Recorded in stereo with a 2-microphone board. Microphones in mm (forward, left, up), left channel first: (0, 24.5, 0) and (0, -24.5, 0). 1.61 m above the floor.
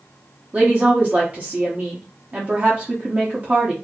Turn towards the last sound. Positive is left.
turn(degrees=-30)  # may be behind; listen again after turning